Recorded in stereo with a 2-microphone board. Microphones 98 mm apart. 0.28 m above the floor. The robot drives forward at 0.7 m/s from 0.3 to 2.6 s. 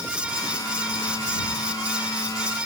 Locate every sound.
Only background noise.